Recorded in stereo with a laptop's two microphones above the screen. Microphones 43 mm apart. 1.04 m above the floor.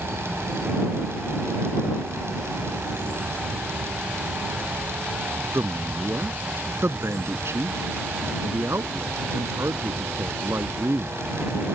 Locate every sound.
0.0 s a fan: 70° right (ahead or behind)
5.5 s a man speaking: 75° right (ahead or behind)